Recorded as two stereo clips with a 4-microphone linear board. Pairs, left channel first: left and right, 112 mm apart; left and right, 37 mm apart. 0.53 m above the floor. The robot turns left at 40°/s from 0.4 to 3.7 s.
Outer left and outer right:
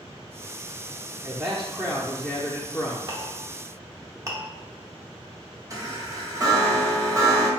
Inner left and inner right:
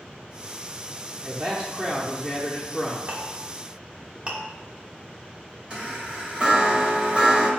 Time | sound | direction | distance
1.2 | a man speaking | 155° right | 0.8 m
3.1 | a clink | 45° right (ahead or behind) | 0.9 m
5.7 | a chime | 30° right (ahead or behind) | 1.3 m